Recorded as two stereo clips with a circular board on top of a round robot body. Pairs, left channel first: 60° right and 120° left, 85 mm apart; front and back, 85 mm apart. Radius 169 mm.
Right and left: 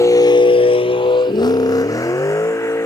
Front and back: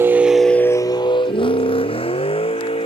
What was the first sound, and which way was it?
A vehicle, 115° right.